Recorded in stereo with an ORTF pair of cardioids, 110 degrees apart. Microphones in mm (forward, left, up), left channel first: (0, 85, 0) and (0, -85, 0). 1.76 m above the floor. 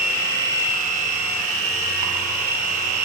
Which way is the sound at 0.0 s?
65° right.